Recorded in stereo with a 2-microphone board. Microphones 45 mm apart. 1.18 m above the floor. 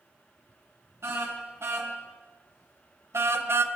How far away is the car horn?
About 5 m.